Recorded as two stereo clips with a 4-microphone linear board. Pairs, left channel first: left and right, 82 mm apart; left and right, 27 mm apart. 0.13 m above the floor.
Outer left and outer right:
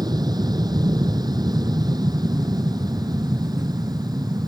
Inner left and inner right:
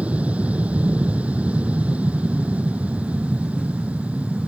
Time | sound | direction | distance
0.0 | an aircraft | 60° right (ahead or behind) | ?